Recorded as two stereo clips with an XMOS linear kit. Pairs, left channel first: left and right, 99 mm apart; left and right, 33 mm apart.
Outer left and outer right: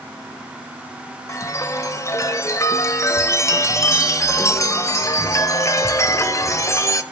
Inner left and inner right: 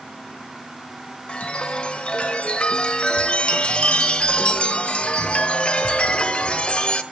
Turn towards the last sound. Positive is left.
turn(degrees=30)  # may be behind; listen again after turning